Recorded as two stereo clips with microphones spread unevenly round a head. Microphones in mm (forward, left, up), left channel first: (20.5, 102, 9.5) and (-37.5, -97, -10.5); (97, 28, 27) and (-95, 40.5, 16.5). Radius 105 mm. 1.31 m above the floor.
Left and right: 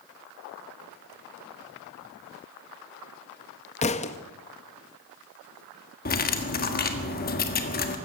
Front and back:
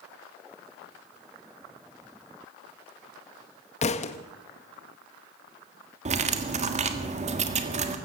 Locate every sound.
3.8 s a thud: 35° left, 0.7 m
6.0 s cutlery clinking: 120° left, 1.6 m